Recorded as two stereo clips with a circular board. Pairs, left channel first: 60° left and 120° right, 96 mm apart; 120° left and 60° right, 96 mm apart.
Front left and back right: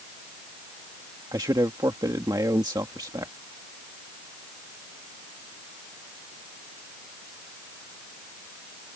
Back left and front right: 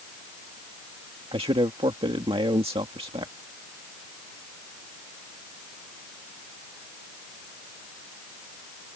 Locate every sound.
1.3 s a man speaking: 75° right